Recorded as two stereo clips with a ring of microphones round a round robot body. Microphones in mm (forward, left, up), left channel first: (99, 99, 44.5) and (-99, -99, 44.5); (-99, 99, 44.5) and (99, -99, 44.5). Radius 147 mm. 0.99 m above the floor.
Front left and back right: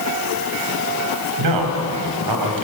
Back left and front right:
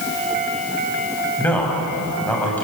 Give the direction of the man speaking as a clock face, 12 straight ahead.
5 o'clock.